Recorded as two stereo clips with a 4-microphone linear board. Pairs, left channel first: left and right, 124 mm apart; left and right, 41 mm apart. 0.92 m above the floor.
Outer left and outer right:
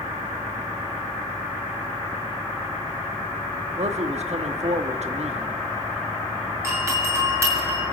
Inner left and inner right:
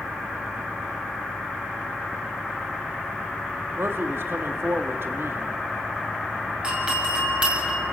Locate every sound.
3.8 s a man speaking: 65° right (ahead or behind), 1.9 m
6.6 s a doorbell: 25° right (ahead or behind), 7 m